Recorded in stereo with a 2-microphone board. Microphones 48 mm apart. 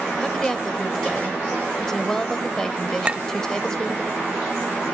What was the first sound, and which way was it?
A woman speaking, 15° left (ahead or behind).